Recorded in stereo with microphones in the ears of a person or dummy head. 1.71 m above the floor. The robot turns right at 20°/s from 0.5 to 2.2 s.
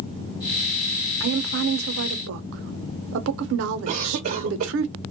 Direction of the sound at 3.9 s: 45° right (ahead or behind).